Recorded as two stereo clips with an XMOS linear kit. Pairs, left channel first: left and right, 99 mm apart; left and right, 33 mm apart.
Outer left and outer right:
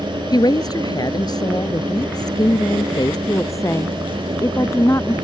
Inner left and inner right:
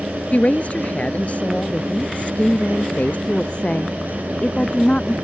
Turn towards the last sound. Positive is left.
turn(degrees=30)  # may be behind; listen again after turning